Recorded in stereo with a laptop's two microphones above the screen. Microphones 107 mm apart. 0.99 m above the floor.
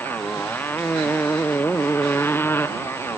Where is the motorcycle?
20° left (ahead or behind).